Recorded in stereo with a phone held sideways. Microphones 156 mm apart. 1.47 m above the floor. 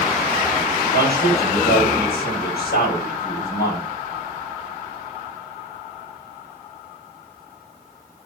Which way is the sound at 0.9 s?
75° left (ahead or behind).